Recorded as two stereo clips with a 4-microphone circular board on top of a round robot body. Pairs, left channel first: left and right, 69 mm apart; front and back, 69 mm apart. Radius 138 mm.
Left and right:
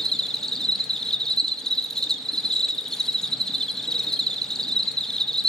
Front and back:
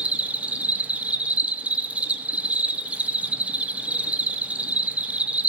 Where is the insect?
160° left, 1.2 m.